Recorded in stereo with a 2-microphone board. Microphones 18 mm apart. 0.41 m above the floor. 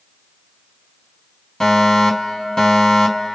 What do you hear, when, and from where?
1.6 s a fire alarm: 30° left (ahead or behind), 5.5 m